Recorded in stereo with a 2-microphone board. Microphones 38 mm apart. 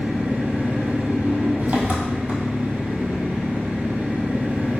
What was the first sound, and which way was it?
An engine running, 45° right (ahead or behind).